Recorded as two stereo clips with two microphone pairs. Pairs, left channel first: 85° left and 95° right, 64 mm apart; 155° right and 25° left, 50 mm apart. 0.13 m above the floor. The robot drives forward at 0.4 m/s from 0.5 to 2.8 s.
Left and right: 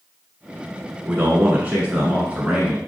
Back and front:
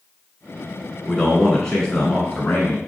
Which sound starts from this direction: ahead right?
A man speaking, at 1.1 s.